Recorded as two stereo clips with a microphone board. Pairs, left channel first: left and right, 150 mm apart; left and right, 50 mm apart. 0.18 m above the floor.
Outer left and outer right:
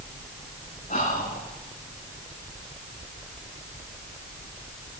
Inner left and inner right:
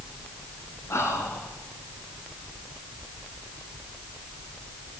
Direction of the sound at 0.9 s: 65° left (ahead or behind).